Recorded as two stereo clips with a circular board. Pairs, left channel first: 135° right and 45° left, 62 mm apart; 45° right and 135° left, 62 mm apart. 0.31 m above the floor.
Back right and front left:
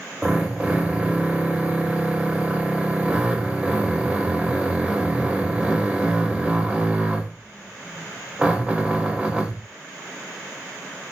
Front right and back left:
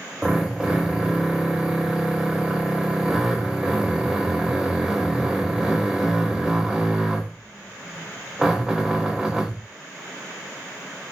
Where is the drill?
80° left, 1.0 m.